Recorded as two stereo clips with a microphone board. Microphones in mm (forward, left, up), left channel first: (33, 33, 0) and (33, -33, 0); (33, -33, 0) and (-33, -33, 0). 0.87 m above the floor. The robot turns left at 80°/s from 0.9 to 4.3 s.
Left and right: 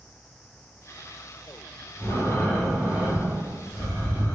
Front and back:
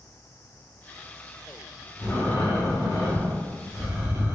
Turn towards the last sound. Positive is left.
turn(degrees=-135)